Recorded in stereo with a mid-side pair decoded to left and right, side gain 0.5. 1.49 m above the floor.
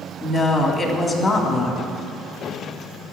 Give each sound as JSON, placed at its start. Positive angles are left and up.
{"t": 0.2, "sound": "a woman speaking", "azimuth_deg": 40, "distance_m": 3.5}